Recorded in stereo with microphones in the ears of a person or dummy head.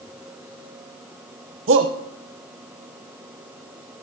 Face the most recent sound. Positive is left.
turn(degrees=-45)  # may be behind; listen again after turning